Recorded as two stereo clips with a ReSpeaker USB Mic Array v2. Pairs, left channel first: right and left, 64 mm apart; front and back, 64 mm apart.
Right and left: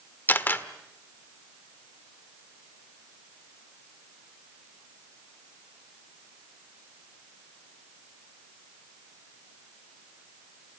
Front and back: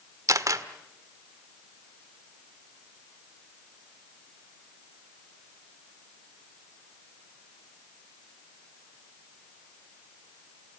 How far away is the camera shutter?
About 1.2 m.